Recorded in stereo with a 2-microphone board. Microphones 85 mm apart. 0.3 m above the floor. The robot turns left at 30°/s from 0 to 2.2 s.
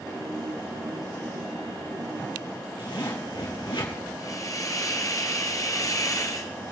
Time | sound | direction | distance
2.8 | a zipper | 75° left (ahead or behind) | 3.5 m
4.2 | a hiss | 45° left (ahead or behind) | 1.1 m